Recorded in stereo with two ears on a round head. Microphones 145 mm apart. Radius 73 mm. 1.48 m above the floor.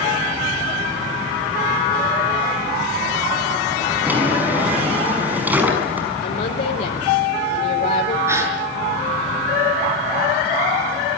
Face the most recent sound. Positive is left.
turn(degrees=-15)  # may be behind; listen again after turning